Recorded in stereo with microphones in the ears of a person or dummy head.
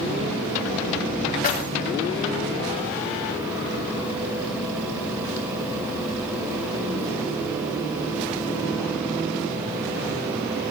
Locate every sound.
1.4 s keys jangling: 40° left (ahead or behind), 1.4 m